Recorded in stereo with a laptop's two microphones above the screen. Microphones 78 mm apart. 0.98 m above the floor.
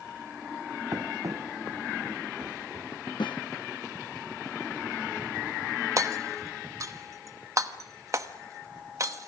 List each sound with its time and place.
0.9 s running footsteps: 45° right (ahead or behind), 2 m; by 2.9 s 60° right (ahead or behind), 5 m
3.2 s a snare drum: 80° left, 0.5 m
6.0 s hammering: 45° right (ahead or behind), 1.0 m